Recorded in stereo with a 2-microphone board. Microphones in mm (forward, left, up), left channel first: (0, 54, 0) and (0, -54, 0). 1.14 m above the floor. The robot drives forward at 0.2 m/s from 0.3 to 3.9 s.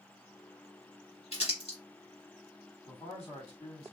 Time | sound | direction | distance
1.3 | crumpling | 70° left (ahead or behind) | 1.8 m
2.9 | a man speaking | 75° left (ahead or behind) | 1.6 m